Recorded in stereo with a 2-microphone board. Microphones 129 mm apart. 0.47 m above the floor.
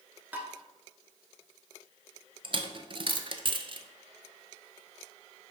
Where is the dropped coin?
40° right (ahead or behind), 0.6 m.